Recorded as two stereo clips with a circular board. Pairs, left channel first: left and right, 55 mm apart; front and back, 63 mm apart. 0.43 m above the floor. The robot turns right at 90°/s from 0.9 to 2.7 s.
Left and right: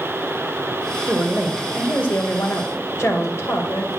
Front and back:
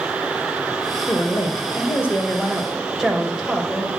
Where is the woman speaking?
45° right, 2.5 m; by 3.9 s 100° left, 2.5 m.